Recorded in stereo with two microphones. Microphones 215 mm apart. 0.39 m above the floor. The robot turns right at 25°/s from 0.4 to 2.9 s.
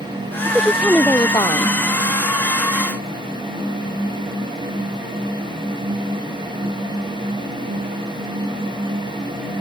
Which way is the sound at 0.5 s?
10° right.